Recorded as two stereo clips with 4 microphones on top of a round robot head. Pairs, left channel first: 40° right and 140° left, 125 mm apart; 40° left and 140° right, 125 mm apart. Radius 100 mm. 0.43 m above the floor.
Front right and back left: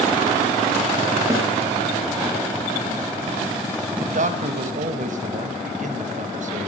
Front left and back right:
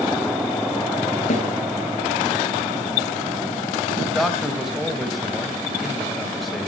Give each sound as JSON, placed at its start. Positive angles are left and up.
{"t": 1.3, "sound": "a snare drum", "azimuth_deg": 75, "distance_m": 5.0}
{"t": 4.0, "sound": "a man speaking", "azimuth_deg": 130, "distance_m": 2.5}